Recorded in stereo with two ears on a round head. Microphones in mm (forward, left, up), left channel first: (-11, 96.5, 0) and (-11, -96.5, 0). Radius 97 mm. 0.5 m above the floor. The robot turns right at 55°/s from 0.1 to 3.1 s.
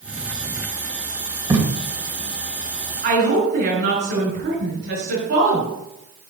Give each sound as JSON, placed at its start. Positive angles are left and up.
{"t": 1.5, "sound": "tape being pulled", "side_deg": -15, "distance_m": 1.9}
{"t": 3.0, "sound": "a woman speaking", "side_deg": -45, "distance_m": 5.0}